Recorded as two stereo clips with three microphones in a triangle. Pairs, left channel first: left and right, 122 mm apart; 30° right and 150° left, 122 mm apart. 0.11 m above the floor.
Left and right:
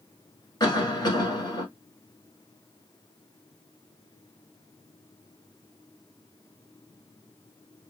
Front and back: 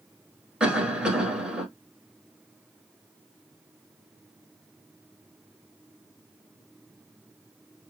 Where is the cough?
75° left, 1.4 m.